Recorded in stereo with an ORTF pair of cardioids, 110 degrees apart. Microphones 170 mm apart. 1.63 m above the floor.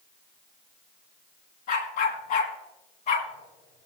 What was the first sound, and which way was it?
A dog barking, 60° left.